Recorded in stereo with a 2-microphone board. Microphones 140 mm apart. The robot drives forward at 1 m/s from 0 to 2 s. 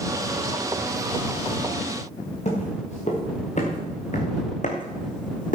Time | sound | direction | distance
2.5 | footsteps | 55° left (ahead or behind) | 5.5 m